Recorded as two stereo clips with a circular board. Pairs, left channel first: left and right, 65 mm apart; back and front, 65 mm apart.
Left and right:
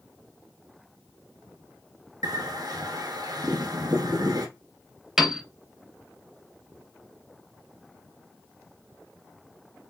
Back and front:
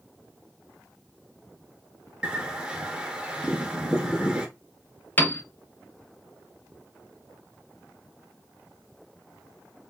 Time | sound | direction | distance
2.2 | a bird | 75° right | 0.6 m
5.2 | a piano | 165° right | 0.6 m